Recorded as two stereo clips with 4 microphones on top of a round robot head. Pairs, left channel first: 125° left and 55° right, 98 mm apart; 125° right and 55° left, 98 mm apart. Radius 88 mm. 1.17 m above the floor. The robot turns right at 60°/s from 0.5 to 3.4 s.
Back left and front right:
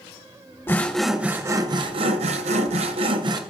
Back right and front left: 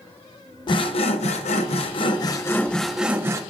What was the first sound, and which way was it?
Sawing, 170° right.